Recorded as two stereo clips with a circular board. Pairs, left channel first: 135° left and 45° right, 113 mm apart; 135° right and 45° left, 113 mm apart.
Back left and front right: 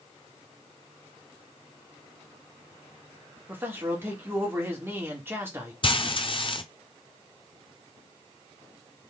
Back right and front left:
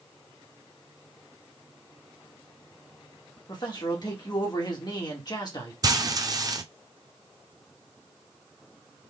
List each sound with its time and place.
3.5 s a man speaking: 105° right, 1.7 m
5.8 s frying: 100° left, 0.6 m